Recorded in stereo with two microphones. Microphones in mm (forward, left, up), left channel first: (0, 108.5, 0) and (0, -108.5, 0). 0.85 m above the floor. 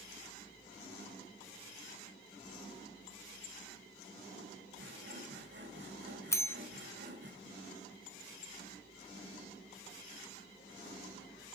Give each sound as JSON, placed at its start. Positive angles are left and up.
{"t": 4.8, "sound": "sawing", "side_deg": -55, "distance_m": 1.6}
{"t": 6.3, "sound": "a bell", "side_deg": 15, "distance_m": 0.8}